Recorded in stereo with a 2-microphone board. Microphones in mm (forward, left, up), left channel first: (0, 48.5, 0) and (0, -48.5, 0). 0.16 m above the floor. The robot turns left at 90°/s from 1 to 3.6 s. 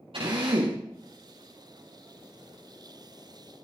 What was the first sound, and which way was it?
A drill, 75° right (ahead or behind).